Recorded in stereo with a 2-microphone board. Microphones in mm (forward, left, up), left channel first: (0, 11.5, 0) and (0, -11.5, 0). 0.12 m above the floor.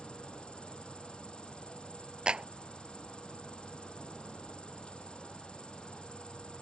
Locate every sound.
0.0 s an insect: 45° left (ahead or behind)
2.3 s a clap: 40° right (ahead or behind)